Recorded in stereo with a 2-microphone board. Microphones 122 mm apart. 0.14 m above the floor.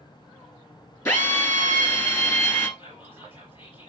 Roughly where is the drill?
Left.